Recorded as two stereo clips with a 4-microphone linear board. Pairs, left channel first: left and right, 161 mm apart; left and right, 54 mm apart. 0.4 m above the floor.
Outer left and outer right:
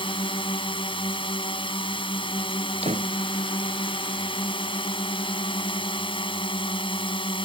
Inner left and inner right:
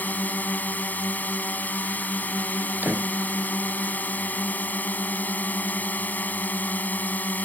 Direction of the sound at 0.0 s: 35° left (ahead or behind).